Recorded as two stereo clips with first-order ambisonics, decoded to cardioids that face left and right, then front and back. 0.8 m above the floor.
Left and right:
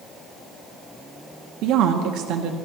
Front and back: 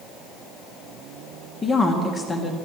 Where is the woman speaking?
70° right, 0.9 m.